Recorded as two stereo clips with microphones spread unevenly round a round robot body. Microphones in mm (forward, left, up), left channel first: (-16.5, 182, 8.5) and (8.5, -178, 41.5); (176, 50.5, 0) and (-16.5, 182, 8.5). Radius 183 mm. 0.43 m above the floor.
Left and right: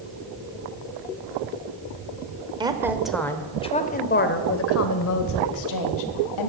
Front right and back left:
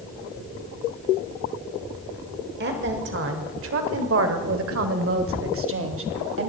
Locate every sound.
2.6 s a woman speaking: 165° right, 1.5 m; by 6.5 s 115° left, 2.5 m